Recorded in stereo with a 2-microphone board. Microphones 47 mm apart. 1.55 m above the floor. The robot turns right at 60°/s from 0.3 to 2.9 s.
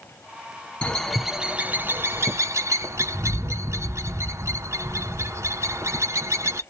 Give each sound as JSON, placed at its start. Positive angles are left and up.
{"t": 0.8, "sound": "a bird", "side_deg": 20, "distance_m": 0.6}